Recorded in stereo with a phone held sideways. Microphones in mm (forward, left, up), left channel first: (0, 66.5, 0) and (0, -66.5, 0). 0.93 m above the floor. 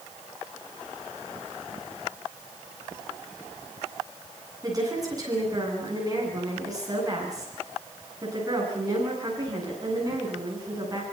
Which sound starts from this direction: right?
A woman speaking, at 4.6 s.